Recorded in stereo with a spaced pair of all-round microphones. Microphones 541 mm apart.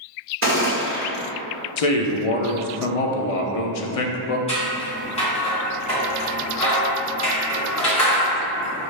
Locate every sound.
0.4 s a gunshot: 20° right (ahead or behind), 1.7 m
1.8 s a man speaking: 85° left, 0.6 m
4.5 s scissors: 10° left (ahead or behind), 1.8 m